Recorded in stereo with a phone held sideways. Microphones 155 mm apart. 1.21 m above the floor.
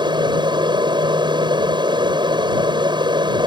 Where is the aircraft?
30° right (ahead or behind).